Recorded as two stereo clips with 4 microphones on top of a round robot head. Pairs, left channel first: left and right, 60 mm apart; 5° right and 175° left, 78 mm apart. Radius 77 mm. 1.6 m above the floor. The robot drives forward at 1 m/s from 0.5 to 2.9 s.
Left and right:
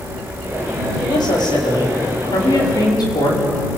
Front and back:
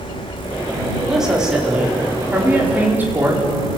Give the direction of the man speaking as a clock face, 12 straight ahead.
9 o'clock.